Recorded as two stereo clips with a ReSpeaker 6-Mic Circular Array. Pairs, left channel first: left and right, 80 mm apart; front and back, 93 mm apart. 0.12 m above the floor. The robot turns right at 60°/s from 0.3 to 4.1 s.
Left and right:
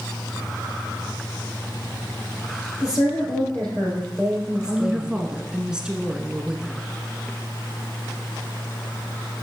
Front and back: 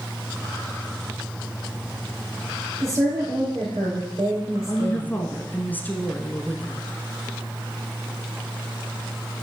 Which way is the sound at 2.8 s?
115° left.